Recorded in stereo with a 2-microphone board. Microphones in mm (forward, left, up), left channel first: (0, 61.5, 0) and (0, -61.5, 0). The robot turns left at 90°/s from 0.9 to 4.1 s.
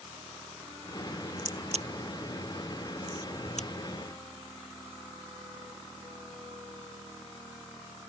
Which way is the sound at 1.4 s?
85° right.